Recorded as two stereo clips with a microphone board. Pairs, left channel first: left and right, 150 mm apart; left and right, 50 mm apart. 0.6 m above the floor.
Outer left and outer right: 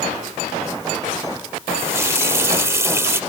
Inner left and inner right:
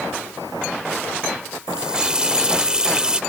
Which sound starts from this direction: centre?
A running tap, at 1.7 s.